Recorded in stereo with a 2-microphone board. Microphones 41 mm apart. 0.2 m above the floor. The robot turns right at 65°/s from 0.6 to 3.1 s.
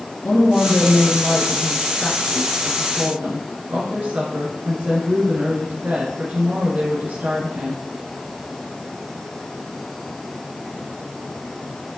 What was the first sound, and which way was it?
A woman speaking, 75° left.